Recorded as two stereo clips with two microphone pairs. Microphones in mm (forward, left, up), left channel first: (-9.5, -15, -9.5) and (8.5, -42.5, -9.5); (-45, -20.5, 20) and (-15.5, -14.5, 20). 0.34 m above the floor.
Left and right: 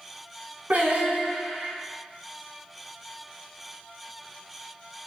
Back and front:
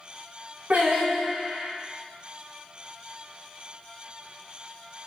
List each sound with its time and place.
0.7 s singing: 25° right, 0.9 m